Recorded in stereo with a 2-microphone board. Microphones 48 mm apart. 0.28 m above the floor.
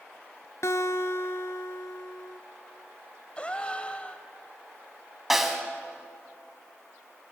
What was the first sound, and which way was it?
A guitar, 70° left (ahead or behind).